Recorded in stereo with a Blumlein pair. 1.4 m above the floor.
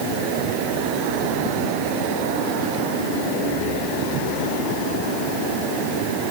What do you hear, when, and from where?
Only background noise.